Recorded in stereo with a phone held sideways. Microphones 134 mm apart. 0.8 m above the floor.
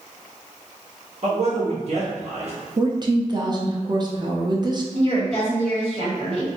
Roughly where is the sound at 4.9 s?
Right.